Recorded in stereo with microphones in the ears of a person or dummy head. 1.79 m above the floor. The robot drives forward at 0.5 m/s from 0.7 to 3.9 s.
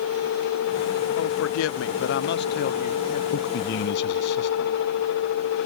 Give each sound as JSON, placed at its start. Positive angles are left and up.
{"t": 1.2, "sound": "a man speaking", "side_deg": 85}
{"t": 3.3, "sound": "a man speaking", "side_deg": 60}